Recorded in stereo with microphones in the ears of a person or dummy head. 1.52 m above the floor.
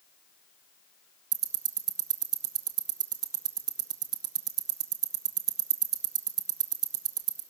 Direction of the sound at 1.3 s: 15° right (ahead or behind).